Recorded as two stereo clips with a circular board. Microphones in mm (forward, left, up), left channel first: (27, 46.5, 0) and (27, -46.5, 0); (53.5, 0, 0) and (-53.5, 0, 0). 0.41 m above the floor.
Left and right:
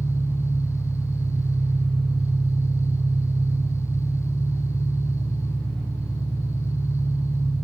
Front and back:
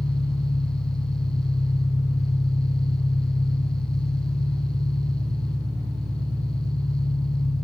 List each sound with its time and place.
0.0 s an engine running: 10° left, 7 m